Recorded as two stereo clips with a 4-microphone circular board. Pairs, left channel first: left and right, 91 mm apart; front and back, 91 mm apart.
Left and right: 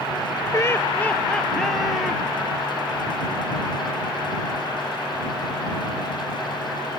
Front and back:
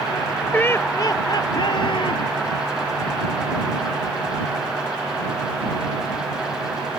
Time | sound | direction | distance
0.5 | laughter | 65° left | ?